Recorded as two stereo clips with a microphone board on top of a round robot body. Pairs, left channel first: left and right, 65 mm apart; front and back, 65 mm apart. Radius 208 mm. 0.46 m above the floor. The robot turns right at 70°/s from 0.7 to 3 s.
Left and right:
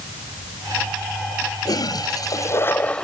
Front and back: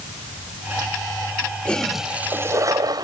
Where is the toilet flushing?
70° left; by 3.0 s 165° left.